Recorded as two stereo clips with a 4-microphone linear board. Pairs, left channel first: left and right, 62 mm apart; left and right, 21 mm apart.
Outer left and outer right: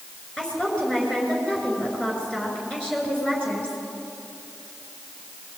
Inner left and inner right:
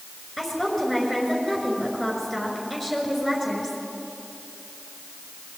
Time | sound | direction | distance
0.4 | a woman speaking | 15° left (ahead or behind) | 6 m